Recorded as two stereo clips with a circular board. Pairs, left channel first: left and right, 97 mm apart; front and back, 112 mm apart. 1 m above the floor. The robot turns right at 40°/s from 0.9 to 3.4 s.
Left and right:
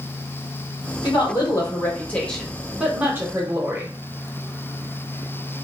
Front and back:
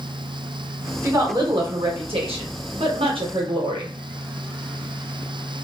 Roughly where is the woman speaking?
Behind left.